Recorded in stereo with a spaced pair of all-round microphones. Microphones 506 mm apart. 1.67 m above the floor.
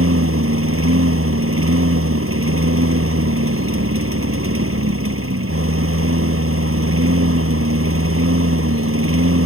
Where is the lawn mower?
25° right (ahead or behind).